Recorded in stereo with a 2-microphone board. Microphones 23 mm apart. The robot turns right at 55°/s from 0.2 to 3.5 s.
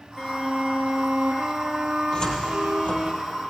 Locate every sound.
0.2 s a violin: 165° left, 2 m; by 3.1 s 30° right, 2 m
2.1 s a cupboard door: 40° left (ahead or behind), 3.5 m; by 3.1 s 65° left (ahead or behind), 3.5 m